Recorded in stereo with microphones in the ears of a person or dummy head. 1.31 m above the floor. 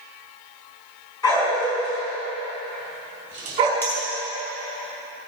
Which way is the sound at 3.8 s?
10° left (ahead or behind).